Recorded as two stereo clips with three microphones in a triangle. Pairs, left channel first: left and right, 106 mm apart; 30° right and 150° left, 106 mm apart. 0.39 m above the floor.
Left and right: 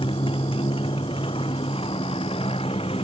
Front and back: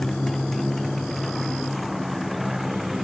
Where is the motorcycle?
55° left; by 3.0 s 60° left.